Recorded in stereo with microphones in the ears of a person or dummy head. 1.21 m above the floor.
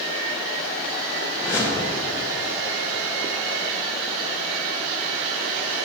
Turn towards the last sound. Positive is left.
turn(degrees=15)  # may be behind; listen again after turning